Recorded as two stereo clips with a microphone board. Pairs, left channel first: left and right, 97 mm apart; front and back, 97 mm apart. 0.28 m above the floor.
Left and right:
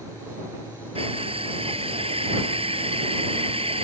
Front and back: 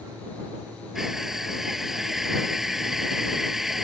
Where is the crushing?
95° right.